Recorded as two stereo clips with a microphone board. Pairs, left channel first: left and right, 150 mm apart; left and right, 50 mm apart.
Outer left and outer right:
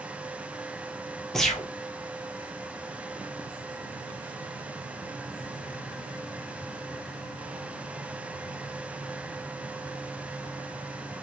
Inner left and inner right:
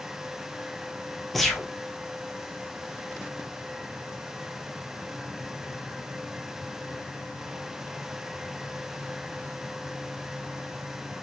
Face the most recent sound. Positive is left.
turn(degrees=5)  # may be behind; listen again after turning